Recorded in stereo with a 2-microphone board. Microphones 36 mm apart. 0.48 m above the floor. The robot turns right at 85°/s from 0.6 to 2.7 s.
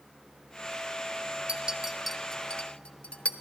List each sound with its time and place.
1.5 s a clink: 35° right (ahead or behind), 0.8 m; by 3.3 s 35° left (ahead or behind), 0.8 m